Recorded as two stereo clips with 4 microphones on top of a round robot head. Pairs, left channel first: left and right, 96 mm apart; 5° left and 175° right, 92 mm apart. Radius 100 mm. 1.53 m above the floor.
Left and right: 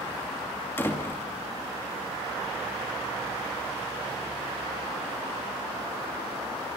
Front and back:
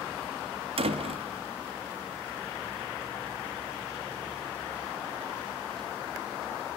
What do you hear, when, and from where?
0.8 s a door slam: 165° left, 2.5 m